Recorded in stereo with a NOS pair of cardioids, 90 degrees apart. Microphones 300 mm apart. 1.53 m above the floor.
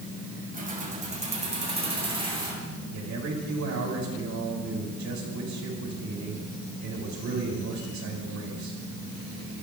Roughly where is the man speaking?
Ahead right.